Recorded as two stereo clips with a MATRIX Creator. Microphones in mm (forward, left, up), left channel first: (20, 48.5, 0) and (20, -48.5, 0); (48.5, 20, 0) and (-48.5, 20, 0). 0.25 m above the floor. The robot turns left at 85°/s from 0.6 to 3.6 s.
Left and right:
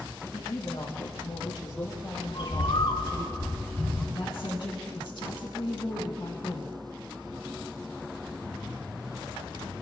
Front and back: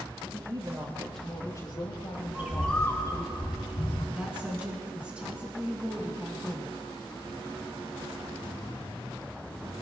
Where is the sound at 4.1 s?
105° left, 2.5 m.